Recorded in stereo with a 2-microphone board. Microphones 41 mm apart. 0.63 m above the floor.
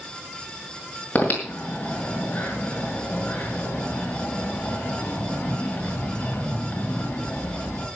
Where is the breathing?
40° left (ahead or behind), 5.5 m.